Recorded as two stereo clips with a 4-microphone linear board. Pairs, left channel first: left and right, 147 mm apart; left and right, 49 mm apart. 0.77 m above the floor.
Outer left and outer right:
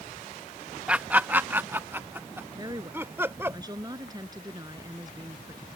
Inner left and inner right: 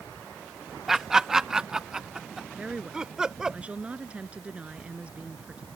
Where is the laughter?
10° right (ahead or behind); by 3.6 s 15° right (ahead or behind).